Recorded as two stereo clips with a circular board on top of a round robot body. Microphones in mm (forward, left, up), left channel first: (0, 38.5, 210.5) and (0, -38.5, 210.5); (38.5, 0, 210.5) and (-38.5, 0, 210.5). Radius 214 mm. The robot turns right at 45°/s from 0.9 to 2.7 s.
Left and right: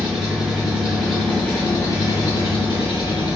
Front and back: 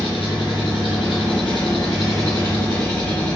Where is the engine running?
Straight ahead, 1.1 m; by 3.4 s 80° left, 1.1 m.